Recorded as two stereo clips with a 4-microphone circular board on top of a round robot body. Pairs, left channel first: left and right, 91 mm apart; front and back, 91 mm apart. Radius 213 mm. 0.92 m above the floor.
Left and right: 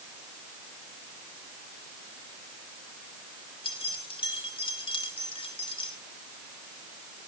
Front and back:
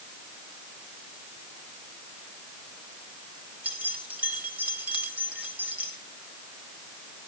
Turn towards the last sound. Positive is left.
turn(degrees=105)